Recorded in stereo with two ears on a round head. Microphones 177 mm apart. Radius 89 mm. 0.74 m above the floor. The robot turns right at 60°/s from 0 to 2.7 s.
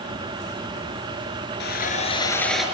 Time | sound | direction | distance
1.6 | sawing | 120° left | 4.5 m